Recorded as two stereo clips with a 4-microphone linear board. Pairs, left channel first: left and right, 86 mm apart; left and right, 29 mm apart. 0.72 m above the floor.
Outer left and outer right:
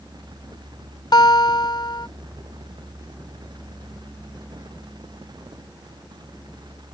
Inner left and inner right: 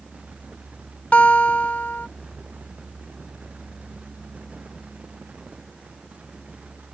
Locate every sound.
1.1 s a guitar: 50° left (ahead or behind)